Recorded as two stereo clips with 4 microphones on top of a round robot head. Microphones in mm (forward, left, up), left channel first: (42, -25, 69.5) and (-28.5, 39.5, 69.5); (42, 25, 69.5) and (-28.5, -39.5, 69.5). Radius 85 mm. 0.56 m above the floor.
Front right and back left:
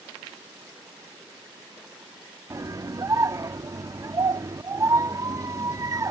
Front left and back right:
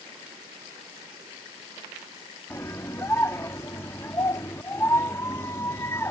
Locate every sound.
2.5 s a scream: 95° left